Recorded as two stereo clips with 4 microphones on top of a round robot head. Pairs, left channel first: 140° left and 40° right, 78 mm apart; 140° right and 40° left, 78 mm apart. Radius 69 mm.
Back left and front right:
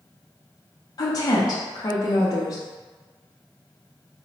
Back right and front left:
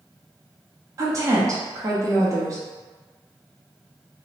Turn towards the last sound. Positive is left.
turn(degrees=95)